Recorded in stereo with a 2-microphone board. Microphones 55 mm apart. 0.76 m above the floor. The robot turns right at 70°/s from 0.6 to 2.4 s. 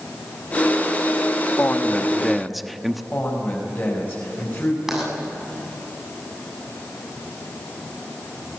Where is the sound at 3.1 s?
40° left (ahead or behind), 5 m.